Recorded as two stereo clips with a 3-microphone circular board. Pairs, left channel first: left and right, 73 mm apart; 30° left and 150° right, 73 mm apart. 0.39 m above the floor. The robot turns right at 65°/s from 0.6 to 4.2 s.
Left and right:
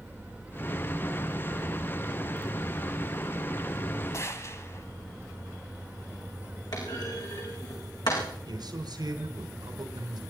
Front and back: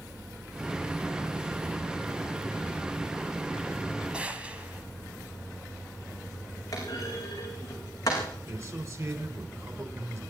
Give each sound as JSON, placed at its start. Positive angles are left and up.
{"t": 4.1, "sound": "a gunshot", "azimuth_deg": 135, "distance_m": 1.8}
{"t": 6.7, "sound": "a clunk", "azimuth_deg": 70, "distance_m": 6.0}
{"t": 8.5, "sound": "a man speaking", "azimuth_deg": -105, "distance_m": 4.0}